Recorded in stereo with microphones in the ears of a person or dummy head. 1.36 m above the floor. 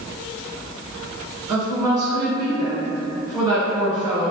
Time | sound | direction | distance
1.5 | a woman speaking | 20° right (ahead or behind) | 1.3 m